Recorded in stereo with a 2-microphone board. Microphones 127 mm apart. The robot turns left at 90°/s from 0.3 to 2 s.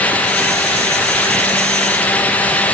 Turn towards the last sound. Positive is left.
No sound to turn to.